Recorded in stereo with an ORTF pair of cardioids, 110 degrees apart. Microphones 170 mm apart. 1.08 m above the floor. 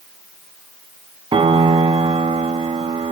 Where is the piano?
30° right, 1.1 m.